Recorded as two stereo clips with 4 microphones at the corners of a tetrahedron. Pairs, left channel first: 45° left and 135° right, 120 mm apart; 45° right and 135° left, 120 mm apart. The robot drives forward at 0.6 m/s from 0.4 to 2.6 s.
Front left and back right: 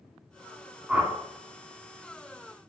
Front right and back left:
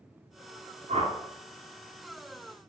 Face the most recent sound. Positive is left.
turn(degrees=160)